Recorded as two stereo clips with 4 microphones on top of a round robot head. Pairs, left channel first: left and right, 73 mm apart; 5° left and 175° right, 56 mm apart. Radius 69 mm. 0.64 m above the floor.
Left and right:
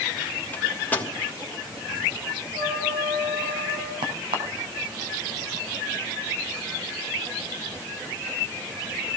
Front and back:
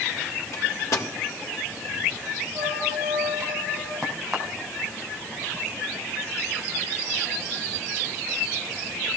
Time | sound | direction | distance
0.5 | a microwave | 25° left | 3 m
2.5 | a trumpet | 95° right | 7 m
4.0 | a crack | 85° right | 3 m